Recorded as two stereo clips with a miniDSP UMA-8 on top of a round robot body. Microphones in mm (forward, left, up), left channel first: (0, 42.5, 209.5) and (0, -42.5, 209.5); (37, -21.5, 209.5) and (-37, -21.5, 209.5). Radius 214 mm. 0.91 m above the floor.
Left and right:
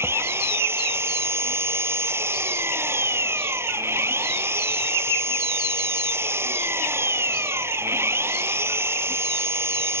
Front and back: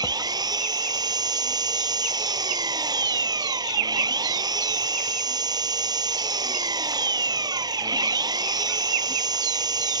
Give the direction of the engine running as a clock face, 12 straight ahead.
5 o'clock.